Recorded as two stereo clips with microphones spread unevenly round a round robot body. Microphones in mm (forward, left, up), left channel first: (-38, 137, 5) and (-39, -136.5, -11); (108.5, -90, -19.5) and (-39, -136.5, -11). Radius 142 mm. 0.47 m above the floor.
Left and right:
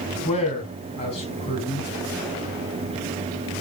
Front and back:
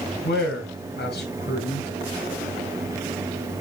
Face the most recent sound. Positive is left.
turn(degrees=20)